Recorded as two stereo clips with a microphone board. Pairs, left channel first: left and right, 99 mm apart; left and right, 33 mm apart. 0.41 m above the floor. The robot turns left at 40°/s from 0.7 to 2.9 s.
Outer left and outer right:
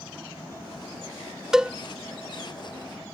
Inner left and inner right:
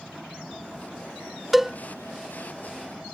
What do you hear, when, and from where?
1.5 s a cowbell: 5° right (ahead or behind); by 1.8 s 10° right (ahead or behind)